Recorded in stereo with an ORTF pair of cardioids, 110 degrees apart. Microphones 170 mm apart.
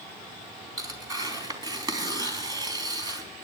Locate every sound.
0.8 s tearing paper: 25° right, 3.5 m